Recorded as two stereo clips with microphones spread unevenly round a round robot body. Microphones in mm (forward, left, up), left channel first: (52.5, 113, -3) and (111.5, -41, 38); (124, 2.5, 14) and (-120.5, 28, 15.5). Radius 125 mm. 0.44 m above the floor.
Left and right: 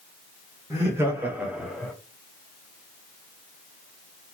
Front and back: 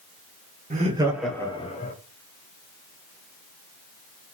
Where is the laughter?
150° right, 1.2 m; by 1.9 s 35° left, 1.4 m.